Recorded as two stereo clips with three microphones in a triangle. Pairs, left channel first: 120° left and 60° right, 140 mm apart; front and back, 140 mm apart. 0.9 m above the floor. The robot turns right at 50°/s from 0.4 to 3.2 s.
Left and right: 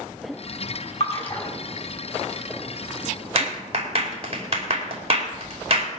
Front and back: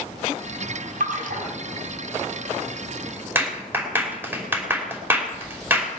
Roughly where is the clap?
Right.